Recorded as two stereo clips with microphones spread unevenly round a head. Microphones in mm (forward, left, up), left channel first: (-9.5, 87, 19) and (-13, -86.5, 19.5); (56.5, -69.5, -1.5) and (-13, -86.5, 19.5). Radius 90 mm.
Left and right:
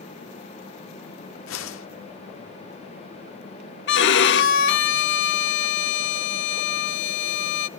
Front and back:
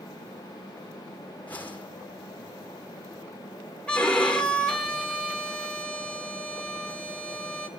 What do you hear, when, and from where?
1.5 s a whoosh: 100° left, 1.3 m
3.9 s a violin: 105° left, 0.9 m